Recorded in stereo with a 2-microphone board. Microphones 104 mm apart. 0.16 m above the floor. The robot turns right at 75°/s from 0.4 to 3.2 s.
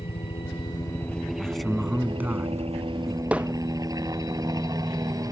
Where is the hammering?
10° right (ahead or behind).